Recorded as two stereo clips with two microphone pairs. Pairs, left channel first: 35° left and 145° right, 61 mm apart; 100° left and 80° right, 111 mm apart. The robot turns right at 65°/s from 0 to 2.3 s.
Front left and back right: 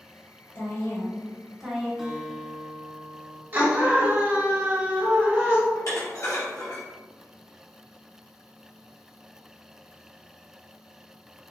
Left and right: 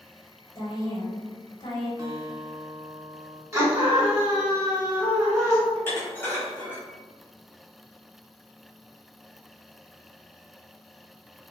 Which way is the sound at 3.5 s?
125° right.